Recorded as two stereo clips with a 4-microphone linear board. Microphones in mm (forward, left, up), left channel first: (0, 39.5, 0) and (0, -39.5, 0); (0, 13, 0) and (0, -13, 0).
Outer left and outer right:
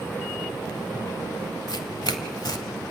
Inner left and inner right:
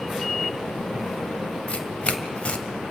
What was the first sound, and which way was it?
Tearing paper, 65° left (ahead or behind).